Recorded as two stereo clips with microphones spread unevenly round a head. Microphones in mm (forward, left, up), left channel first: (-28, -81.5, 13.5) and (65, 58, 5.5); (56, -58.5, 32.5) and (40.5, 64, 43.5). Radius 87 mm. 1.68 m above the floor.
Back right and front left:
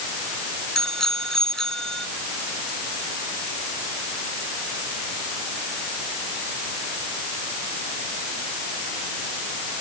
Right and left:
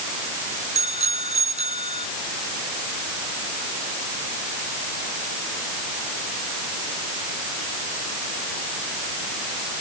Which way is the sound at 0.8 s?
150° left.